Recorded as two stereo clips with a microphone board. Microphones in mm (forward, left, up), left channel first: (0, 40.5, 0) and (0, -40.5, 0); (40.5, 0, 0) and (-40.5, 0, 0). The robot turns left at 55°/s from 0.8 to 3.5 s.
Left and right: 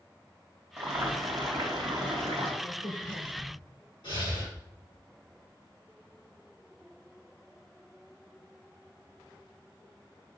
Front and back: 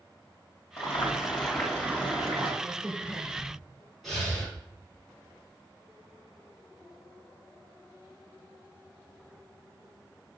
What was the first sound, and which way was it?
Boiling, 45° right.